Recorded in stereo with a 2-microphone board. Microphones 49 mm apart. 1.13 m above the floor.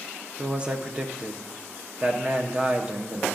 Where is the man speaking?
20° right (ahead or behind), 0.7 m.